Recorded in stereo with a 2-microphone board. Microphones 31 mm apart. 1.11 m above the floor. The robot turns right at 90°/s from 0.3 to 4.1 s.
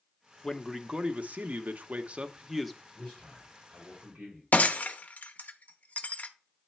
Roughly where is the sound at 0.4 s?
Behind.